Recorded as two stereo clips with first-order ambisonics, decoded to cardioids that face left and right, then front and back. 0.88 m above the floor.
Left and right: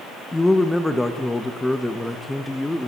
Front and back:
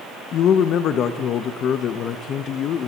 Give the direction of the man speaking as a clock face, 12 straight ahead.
12 o'clock.